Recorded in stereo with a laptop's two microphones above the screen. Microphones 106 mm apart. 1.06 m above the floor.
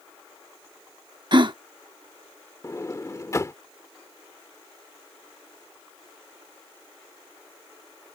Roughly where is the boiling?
No boiling in this recording.